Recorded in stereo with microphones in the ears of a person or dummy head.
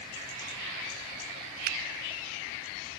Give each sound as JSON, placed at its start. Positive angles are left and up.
{"t": 1.6, "sound": "a finger snap", "side_deg": -45, "distance_m": 0.5}